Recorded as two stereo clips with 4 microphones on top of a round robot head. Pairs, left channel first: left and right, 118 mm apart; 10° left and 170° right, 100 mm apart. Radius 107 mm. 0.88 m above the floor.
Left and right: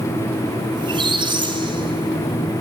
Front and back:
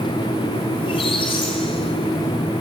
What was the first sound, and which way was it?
A squeak, 40° right.